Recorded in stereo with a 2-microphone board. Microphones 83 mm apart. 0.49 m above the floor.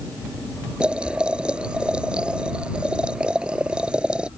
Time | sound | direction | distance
0.8 | boiling | 10° right (ahead or behind) | ?